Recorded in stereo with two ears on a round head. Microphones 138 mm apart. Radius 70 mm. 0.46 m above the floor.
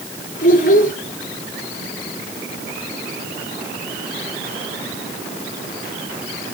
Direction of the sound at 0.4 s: 55° left (ahead or behind).